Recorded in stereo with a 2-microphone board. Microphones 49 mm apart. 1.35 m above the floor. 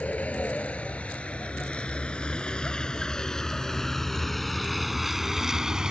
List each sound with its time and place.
0.0 s a vehicle: 30° left (ahead or behind); by 5.9 s 15° right (ahead or behind)